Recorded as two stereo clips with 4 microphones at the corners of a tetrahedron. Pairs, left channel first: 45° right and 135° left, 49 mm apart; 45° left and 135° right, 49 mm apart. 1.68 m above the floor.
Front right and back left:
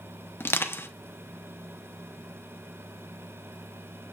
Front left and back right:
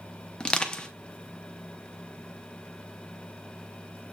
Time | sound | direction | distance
0.4 | crushing | 25° right | 0.9 m